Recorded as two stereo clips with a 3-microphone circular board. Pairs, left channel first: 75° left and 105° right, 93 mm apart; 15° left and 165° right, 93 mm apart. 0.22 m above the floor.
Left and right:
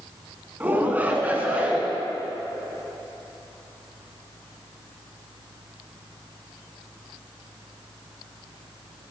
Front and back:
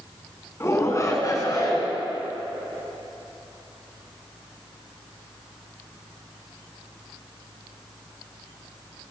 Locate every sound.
0.6 s a shout: 35° right, 2.5 m; by 1.9 s 30° right, 3.5 m